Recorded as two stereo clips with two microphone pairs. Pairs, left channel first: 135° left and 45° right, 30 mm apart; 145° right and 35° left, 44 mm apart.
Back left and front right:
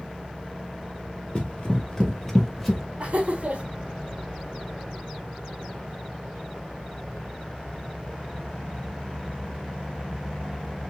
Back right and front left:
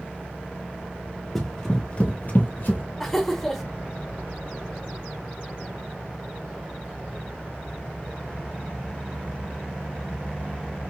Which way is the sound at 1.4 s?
135° left.